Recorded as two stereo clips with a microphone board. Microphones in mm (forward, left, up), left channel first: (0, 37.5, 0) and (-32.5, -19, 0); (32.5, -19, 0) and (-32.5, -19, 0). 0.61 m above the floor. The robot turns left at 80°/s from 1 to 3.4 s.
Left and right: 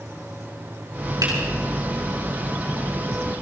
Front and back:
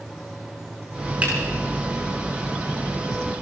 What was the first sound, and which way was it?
A finger snap, 115° right.